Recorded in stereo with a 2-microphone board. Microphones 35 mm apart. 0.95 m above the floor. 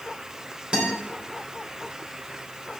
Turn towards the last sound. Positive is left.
turn(degrees=-30)  # may be behind; listen again after turning